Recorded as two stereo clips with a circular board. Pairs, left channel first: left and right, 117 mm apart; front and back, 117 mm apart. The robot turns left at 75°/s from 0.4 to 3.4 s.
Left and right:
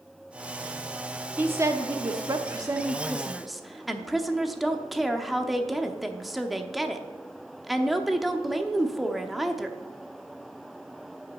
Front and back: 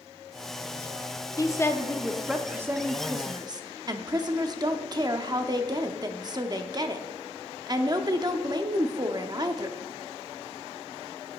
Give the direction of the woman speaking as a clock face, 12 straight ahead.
1 o'clock.